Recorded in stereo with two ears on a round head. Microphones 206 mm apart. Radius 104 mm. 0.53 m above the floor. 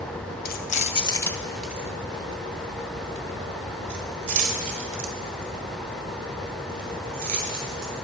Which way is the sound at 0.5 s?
45° left (ahead or behind).